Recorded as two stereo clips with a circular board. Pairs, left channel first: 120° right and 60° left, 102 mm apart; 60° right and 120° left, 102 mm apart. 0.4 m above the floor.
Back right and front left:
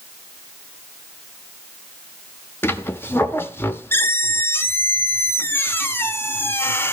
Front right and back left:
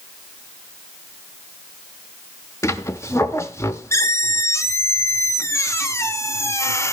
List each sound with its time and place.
2.6 s a squeak: 80° right, 0.7 m